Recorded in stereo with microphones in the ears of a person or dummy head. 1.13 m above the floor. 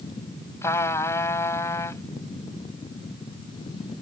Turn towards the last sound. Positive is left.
turn(degrees=15)  # may be behind; listen again after turning